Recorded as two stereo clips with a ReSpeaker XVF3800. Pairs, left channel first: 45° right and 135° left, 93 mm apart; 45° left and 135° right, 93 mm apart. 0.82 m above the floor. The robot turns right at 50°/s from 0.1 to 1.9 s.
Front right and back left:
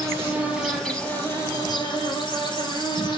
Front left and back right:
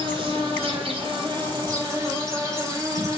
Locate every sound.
0.0 s an insect: 170° right, 5 m; by 3.2 s 80° right, 5 m